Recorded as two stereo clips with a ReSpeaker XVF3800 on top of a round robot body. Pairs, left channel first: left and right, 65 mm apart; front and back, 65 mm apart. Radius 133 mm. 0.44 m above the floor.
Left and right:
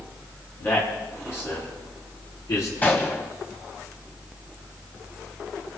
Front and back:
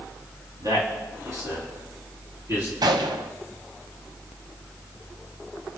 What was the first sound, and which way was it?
A man speaking, 150° left.